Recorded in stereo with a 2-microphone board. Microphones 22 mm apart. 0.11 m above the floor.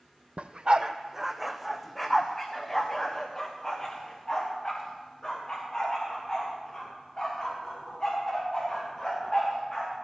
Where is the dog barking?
65° right (ahead or behind), 1.0 m; by 9.9 s 35° left (ahead or behind), 11.5 m.